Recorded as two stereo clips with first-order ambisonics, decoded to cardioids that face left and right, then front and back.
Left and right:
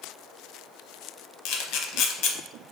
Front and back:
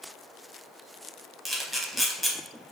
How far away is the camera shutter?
About 0.5 m.